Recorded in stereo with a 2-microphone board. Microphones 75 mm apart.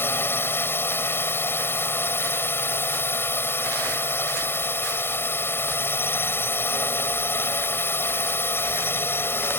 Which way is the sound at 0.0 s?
30° left (ahead or behind).